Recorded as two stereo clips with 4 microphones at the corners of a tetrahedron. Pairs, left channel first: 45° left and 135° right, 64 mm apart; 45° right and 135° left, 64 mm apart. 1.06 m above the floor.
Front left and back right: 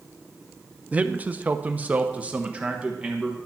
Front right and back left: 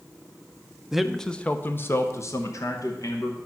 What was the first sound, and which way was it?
A man speaking, 160° right.